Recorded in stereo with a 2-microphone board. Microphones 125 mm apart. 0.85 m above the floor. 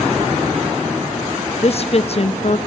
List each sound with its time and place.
1.6 s a woman speaking: 50° left (ahead or behind), 0.8 m